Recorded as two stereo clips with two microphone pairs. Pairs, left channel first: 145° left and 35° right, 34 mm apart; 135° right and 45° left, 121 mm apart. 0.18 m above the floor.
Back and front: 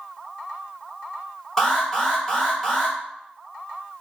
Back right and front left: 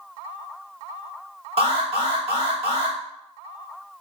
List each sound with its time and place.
1.6 s an alarm: 70° left, 1.4 m